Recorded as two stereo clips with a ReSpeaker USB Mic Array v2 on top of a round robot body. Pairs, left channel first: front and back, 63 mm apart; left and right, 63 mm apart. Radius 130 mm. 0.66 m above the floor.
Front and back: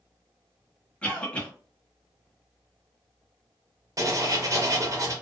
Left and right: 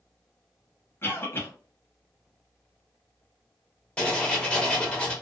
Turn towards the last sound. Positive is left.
turn(degrees=165)